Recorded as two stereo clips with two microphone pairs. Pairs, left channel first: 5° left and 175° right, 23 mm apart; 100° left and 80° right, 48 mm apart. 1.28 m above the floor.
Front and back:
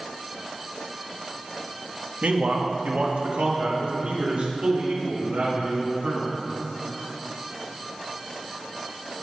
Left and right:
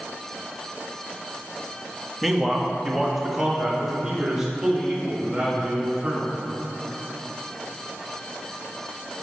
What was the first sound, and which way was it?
A man speaking, 170° right.